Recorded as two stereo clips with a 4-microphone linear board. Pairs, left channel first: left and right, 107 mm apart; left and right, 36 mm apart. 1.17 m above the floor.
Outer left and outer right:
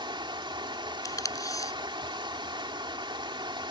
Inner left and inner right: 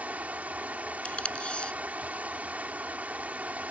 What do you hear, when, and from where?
0.0 s running water: 50° right (ahead or behind)
1.1 s tape being pulled: 30° left (ahead or behind)